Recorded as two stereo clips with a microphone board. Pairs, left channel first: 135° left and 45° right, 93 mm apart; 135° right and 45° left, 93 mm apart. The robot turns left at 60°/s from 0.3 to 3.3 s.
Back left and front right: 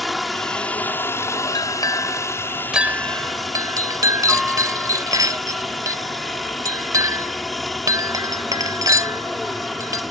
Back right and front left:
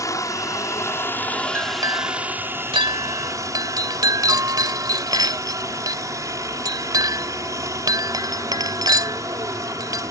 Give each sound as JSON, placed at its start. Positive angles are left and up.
{"t": 0.0, "sound": "a helicopter", "azimuth_deg": -135}
{"t": 1.6, "sound": "a clink", "azimuth_deg": 105}